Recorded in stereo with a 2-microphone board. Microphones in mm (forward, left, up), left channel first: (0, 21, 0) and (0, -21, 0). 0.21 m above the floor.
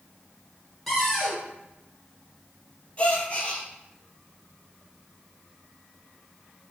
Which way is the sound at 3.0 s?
30° left (ahead or behind).